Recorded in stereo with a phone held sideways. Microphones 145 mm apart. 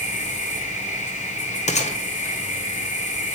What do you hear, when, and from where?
0.0 s an insect: 60° left (ahead or behind), 6.5 m
1.7 s a gunshot: 55° left (ahead or behind), 1.8 m